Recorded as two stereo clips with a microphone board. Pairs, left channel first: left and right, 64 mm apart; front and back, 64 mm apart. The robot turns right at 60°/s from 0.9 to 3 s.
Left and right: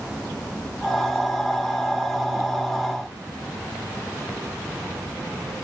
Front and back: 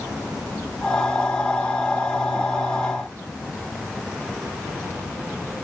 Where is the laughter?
No laughter in this recording.